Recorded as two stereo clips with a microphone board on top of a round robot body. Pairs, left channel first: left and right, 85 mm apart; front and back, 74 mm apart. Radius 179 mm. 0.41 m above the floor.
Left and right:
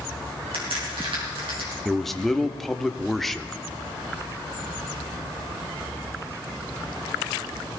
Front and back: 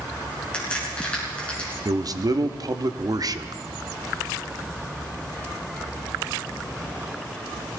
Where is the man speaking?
Straight behind, 1.2 m.